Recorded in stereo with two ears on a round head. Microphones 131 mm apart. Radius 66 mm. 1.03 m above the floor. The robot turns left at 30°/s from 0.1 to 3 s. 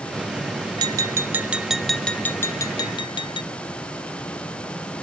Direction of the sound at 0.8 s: 150° right.